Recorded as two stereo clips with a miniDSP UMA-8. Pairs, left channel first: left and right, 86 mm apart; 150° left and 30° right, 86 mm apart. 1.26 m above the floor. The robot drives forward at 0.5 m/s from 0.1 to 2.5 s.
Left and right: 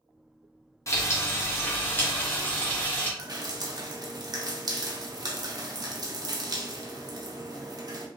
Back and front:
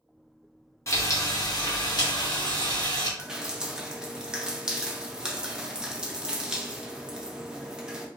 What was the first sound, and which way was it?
Frying, 120° left.